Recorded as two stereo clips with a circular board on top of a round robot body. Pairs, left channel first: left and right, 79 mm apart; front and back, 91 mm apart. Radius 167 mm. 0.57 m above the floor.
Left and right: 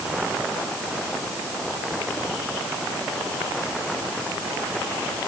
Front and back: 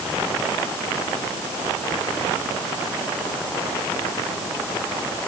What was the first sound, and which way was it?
Only background noise.